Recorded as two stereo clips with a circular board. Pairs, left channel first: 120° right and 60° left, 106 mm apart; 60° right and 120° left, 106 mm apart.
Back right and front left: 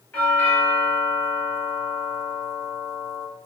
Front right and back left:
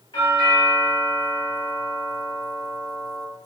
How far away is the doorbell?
About 1.9 m.